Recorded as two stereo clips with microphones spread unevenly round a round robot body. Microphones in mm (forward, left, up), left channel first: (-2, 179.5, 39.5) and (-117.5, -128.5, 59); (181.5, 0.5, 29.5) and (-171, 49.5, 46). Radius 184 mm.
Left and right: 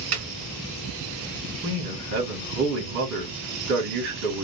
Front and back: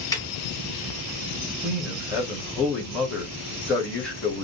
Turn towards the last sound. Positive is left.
turn(degrees=-90)